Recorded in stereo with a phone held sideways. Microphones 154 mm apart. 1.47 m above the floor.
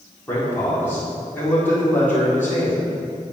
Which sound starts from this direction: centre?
A man speaking, at 0.3 s.